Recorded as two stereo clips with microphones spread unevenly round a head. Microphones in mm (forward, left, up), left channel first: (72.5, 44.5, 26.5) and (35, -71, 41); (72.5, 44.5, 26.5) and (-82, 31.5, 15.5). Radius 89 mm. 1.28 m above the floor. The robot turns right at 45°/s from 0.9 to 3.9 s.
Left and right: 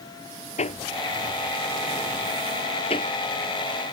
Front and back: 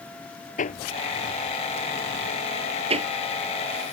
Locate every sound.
0.6 s hammering: 40° left; by 3.9 s 175° left